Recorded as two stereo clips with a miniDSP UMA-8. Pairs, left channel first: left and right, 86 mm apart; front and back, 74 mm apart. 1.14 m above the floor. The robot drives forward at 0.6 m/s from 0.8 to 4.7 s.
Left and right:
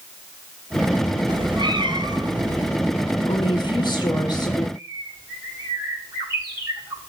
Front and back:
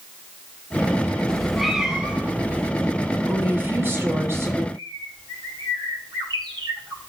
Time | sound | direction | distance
1.3 | a cat meowing | 80° right | 1.2 m
3.3 | a woman speaking | 115° left | 3 m
4.8 | a bird | 155° right | 5.5 m